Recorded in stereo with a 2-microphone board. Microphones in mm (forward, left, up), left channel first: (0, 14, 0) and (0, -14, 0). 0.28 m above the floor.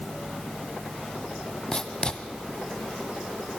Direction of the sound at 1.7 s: 25° left (ahead or behind).